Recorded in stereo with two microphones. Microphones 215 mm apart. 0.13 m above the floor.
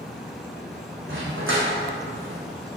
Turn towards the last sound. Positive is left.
turn(degrees=-75)  # may be behind; listen again after turning